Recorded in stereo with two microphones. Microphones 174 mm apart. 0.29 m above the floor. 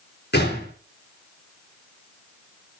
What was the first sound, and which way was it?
A gunshot, 80° left.